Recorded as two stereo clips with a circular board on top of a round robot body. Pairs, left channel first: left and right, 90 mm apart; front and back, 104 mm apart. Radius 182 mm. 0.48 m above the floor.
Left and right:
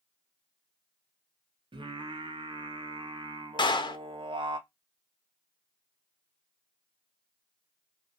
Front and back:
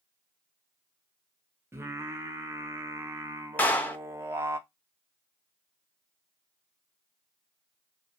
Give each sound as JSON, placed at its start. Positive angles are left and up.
{"t": 1.7, "sound": "singing", "azimuth_deg": -115, "distance_m": 0.7}
{"t": 3.6, "sound": "a clap", "azimuth_deg": 70, "distance_m": 0.8}